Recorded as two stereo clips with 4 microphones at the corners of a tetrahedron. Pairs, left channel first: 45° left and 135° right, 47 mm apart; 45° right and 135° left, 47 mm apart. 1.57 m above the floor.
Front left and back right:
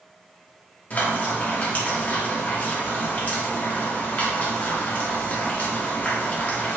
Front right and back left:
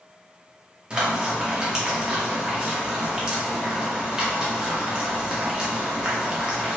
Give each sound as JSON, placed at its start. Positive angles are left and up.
{"t": 0.9, "sound": "frying", "azimuth_deg": 70, "distance_m": 0.9}